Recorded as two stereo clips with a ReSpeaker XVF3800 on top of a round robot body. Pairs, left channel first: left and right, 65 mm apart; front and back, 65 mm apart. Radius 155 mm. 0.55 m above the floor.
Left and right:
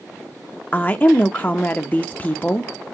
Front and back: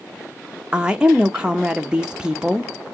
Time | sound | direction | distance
0.7 | a woman speaking | 120° left | 0.6 m